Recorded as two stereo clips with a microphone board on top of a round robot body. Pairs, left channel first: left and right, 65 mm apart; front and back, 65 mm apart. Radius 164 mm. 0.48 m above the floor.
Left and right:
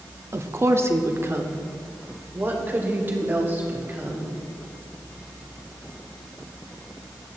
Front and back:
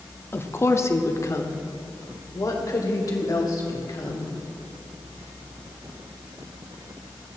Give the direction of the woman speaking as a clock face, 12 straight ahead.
2 o'clock.